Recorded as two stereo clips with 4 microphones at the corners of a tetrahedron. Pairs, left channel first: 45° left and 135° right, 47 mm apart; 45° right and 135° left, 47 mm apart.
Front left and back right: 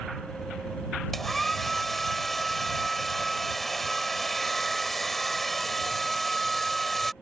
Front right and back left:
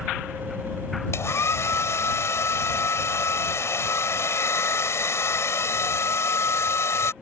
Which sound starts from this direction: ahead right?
A hair dryer, at 1.1 s.